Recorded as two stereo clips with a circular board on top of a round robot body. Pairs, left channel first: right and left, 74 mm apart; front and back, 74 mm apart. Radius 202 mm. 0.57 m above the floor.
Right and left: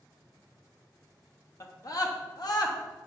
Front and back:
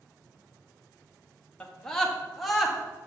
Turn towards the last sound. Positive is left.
turn(degrees=-95)